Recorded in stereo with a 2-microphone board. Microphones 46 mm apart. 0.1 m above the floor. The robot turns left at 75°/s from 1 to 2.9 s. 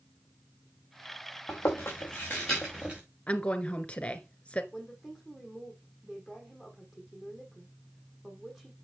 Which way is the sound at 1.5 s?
80° left.